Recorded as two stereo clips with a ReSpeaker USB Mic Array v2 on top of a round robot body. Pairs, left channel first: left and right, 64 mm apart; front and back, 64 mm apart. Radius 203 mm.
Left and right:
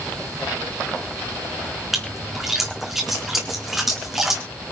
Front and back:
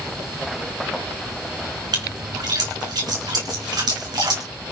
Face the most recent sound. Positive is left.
turn(degrees=-175)